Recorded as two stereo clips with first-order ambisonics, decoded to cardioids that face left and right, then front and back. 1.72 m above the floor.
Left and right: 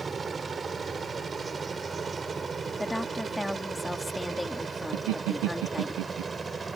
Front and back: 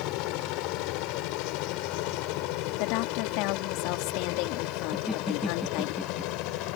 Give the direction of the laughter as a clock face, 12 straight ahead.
3 o'clock.